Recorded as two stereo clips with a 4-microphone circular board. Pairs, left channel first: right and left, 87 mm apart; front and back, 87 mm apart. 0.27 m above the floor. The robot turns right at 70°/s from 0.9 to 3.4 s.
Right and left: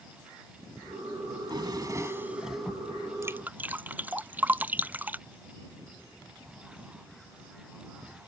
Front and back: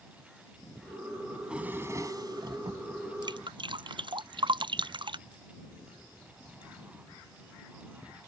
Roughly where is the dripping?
Behind left.